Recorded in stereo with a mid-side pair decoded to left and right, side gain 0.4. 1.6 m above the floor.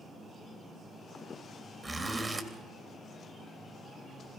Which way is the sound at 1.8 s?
30° right.